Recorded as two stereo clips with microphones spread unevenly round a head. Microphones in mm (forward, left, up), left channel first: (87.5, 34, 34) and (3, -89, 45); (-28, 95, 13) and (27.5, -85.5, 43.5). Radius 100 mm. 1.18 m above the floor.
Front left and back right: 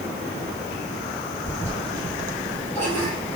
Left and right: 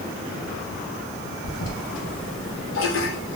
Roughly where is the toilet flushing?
Behind left.